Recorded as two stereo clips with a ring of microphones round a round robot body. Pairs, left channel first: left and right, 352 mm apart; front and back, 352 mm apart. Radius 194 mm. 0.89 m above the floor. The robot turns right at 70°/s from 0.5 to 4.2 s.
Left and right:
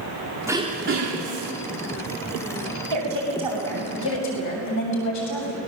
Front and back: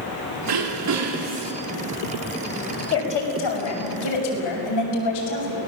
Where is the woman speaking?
50° right, 6.5 m; by 5.6 s 40° left, 6.5 m.